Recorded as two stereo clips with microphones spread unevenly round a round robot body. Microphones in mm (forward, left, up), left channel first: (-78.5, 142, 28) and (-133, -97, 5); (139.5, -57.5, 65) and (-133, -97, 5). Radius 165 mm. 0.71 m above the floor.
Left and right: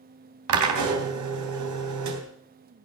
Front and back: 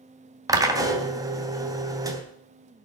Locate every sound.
0.5 s a drill: 95° right, 3 m